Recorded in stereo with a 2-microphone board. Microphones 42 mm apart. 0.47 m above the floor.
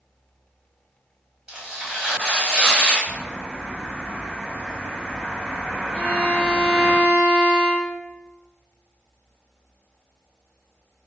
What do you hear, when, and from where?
1.5 s tearing paper: 15° right (ahead or behind), 1.2 m
3.0 s a bird: 5° left (ahead or behind), 1.3 m
5.9 s a violin: 25° left (ahead or behind), 1.6 m